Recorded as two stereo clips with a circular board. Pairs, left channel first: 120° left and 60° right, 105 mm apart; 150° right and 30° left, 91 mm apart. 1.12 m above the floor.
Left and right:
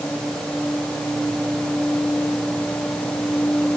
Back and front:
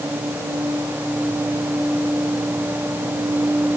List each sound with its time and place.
Only background noise.